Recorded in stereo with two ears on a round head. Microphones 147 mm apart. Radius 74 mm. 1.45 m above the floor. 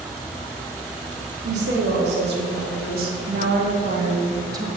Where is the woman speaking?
80° right, 3.5 m; by 4.7 s 20° right (ahead or behind), 1.5 m.